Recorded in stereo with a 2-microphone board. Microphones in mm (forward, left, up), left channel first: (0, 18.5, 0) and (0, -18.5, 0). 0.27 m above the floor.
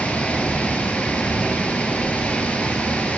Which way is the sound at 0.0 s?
35° left (ahead or behind).